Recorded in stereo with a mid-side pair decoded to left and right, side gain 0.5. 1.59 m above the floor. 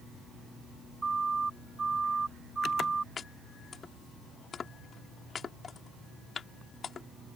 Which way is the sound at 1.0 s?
20° right.